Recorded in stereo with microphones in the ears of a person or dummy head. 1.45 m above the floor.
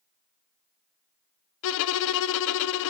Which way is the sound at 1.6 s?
70° left (ahead or behind).